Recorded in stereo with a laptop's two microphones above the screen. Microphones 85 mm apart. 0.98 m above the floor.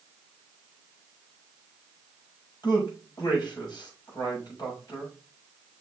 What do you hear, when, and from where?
2.6 s a man speaking: 60° left (ahead or behind), 5 m